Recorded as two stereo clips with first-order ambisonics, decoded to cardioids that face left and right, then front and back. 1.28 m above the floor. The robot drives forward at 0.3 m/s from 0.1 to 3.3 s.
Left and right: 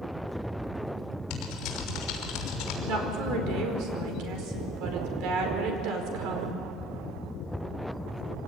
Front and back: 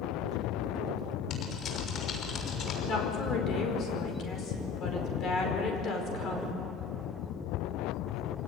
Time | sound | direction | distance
1.3 | typing on a keyboard | 50° left | 5 m
2.9 | a woman speaking | 55° right | 4.5 m